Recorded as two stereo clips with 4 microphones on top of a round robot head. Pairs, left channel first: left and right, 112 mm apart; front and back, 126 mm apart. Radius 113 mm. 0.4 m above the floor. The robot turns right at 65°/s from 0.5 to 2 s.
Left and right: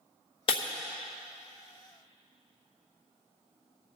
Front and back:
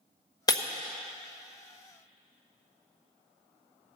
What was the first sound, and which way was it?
Breaking glass, 55° left.